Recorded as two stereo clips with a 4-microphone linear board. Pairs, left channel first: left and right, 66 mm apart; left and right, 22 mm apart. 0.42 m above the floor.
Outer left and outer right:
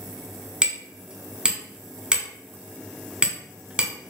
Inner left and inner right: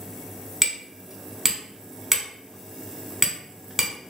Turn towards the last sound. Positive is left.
turn(degrees=-15)  # may be behind; listen again after turning